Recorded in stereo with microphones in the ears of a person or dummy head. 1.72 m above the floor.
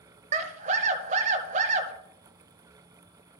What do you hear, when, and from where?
0.3 s a scream: 40° right (ahead or behind), 1.2 m